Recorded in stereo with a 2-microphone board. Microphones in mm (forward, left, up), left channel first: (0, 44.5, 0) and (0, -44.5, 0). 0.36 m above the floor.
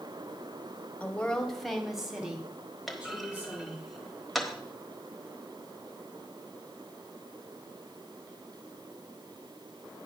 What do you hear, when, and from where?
1.0 s a woman speaking: 15° left (ahead or behind), 1.2 m; by 3.8 s 20° right (ahead or behind), 3 m
2.9 s a clunk: centre (ahead or behind), 1.1 m